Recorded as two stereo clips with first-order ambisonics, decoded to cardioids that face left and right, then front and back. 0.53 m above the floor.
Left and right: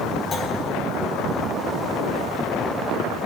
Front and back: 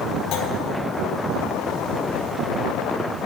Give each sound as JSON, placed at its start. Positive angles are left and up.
{"t": 0.3, "sound": "a clunk", "azimuth_deg": 25, "distance_m": 1.6}